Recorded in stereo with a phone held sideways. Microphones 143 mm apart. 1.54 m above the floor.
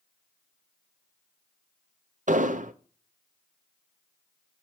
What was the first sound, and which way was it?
An explosion, 65° right (ahead or behind).